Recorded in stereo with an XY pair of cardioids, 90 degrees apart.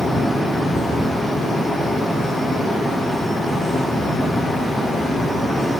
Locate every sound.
0.0 s a fan: 65° left, 2 m